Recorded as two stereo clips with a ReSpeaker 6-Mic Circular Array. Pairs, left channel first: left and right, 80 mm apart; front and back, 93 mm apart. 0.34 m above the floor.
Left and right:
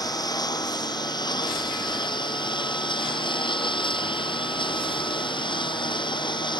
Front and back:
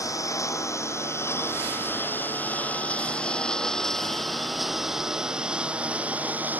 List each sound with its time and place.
0.0 s a lawn mower: 55° left; by 6.6 s 110° left